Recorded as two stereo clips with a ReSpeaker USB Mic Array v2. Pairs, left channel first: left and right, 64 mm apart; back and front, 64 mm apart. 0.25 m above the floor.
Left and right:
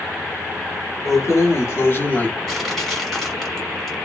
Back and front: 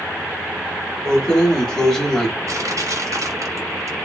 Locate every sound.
1.1 s keys jangling: 105° left, 1.1 m
2.5 s crushing: 5° left, 1.1 m